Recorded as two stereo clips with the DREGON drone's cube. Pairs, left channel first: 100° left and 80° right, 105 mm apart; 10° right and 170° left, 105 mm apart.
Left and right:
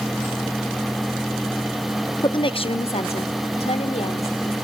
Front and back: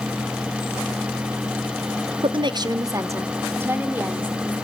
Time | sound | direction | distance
2.2 | a woman speaking | 145° left | 0.9 m